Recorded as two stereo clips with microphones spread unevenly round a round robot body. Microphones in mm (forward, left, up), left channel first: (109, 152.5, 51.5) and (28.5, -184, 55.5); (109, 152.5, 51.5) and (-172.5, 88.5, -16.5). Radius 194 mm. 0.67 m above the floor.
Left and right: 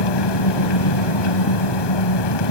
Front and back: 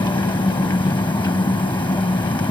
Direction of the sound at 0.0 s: 90° left.